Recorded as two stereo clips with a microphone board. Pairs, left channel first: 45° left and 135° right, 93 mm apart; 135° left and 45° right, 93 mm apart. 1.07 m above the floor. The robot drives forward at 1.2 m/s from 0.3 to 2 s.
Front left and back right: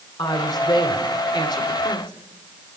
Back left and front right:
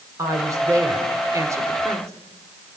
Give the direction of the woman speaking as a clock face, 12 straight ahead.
12 o'clock.